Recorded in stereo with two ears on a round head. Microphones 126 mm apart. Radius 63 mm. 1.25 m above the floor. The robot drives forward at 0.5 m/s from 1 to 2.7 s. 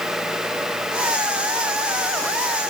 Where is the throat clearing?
No throat clearing in this recording.